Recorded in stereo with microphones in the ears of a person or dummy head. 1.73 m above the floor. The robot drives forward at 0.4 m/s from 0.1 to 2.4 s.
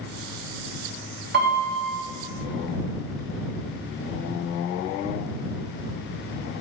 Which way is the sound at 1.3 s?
65° right (ahead or behind).